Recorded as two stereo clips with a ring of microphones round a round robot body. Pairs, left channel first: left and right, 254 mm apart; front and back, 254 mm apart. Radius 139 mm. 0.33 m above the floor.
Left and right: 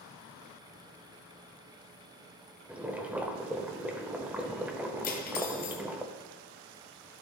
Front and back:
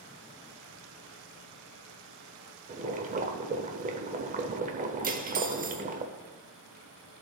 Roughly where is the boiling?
Behind.